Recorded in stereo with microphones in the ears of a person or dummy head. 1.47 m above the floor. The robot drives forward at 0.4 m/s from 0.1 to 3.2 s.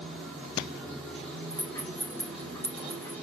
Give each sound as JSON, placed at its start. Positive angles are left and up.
{"t": 0.0, "sound": "running water", "side_deg": -5, "distance_m": 1.8}
{"t": 1.5, "sound": "a rattle", "side_deg": 10, "distance_m": 1.0}